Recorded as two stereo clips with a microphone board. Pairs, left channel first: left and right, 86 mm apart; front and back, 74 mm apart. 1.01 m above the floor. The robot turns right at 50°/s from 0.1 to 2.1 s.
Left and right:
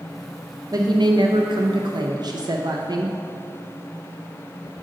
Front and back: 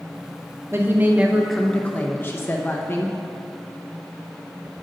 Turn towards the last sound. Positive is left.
turn(degrees=-60)